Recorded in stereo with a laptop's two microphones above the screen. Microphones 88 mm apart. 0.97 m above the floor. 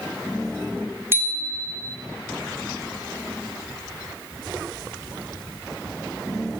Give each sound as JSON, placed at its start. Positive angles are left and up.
{"t": 1.1, "sound": "a bicycle bell", "side_deg": -25, "distance_m": 2.0}